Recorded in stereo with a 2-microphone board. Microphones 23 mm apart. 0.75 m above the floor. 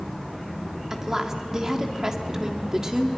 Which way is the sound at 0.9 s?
25° right (ahead or behind).